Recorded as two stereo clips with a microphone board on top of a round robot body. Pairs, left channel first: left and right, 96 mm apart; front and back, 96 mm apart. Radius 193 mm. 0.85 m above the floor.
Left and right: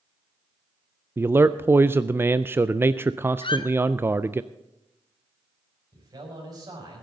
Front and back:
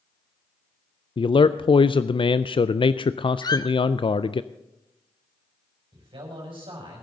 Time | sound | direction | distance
1.2 | a man speaking | 25° right | 0.5 m
3.4 | a squeak | 50° left | 0.9 m
5.9 | a man speaking | 140° right | 5.5 m